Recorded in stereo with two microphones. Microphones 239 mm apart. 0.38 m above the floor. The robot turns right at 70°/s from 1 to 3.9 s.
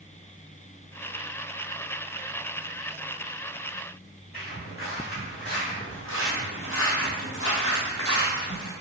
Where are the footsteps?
40° left (ahead or behind), 1.7 m; by 8.7 s 35° left (ahead or behind), 1.1 m.